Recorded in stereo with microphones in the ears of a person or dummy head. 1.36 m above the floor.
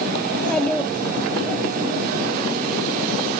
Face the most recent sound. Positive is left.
turn(degrees=5)  # may be behind; listen again after turning